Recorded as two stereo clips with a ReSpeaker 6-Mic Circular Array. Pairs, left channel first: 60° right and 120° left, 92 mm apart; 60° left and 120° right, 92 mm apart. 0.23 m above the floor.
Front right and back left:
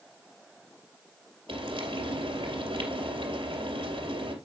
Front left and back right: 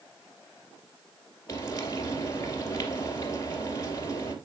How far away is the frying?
About 2.5 m.